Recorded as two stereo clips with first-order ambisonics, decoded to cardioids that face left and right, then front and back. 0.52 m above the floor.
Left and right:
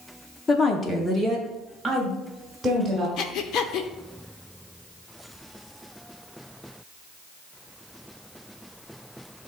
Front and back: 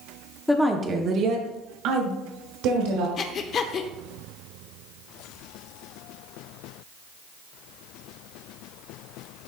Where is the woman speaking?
70° left, 0.7 m; by 3.1 s 175° right, 2 m.